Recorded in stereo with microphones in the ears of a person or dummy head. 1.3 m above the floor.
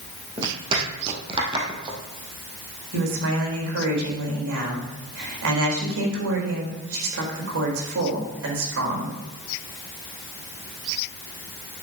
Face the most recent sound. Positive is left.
turn(degrees=-80)